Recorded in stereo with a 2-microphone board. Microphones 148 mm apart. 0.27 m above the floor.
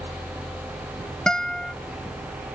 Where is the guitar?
5° left (ahead or behind).